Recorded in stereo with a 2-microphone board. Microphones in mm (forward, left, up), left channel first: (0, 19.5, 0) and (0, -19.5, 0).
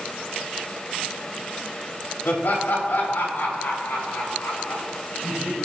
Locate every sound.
2.2 s laughter: 75° left (ahead or behind), 3.5 m